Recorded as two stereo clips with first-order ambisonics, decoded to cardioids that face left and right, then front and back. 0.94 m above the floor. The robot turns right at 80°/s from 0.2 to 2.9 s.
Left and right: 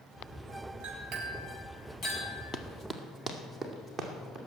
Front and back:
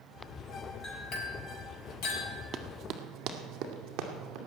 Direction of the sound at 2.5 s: 145° left.